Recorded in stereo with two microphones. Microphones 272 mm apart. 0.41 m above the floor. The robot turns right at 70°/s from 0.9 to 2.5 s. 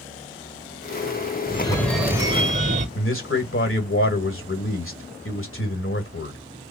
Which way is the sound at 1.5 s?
145° left.